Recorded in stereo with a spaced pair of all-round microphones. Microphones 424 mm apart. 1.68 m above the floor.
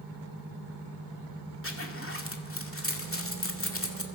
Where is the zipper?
30° left (ahead or behind), 2 m.